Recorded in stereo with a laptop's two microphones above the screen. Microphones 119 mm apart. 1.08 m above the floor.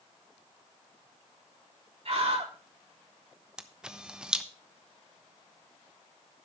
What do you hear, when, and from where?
2.0 s a scream: 60° right (ahead or behind), 3.5 m
3.6 s a camera shutter: 5° right (ahead or behind), 0.9 m